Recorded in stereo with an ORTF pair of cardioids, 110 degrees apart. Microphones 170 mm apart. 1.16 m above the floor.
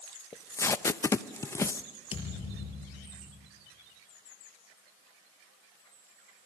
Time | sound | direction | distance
0.3 | tape being pulled | 15° left | 0.7 m
2.1 | a thud | 30° left | 5 m